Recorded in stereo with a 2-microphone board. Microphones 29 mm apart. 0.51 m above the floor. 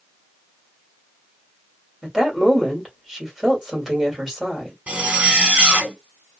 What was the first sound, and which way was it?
A woman speaking, 10° right (ahead or behind).